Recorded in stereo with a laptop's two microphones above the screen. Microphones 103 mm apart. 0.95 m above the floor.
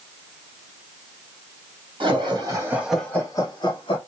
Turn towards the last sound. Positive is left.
turn(degrees=60)  # may be behind; listen again after turning